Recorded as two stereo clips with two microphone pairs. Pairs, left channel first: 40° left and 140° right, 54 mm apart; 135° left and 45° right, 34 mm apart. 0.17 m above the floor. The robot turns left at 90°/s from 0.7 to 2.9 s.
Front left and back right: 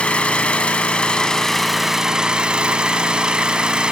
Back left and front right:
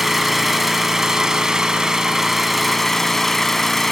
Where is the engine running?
35° left, 0.7 m; by 3.9 s 160° right, 0.7 m.